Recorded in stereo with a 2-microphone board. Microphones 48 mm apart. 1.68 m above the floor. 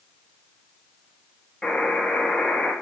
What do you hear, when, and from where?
1.6 s a buzzer: 15° left (ahead or behind), 1.9 m